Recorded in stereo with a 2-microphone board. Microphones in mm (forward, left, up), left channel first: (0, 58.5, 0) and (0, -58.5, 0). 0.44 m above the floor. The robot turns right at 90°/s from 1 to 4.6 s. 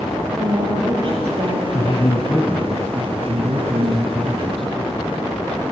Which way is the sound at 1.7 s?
115° left.